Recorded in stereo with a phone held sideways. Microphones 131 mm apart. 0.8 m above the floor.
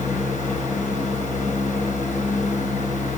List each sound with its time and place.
0.0 s a fan: 75° left (ahead or behind), 5 m